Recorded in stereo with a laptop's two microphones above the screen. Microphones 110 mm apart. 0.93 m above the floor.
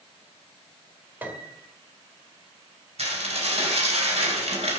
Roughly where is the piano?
Centre.